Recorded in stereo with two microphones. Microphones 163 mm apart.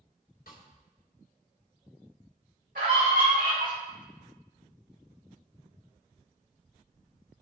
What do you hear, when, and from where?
0.5 s a snare drum: 85° left, 2.5 m
2.8 s a scream: 70° right (ahead or behind), 4.5 m